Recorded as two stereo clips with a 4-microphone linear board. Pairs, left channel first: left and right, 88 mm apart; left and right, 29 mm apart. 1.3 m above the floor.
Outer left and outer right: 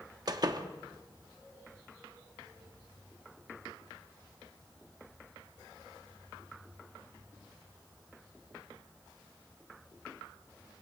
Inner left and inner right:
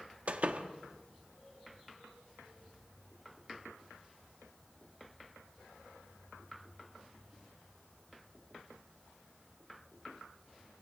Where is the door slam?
50° right (ahead or behind), 1.4 m.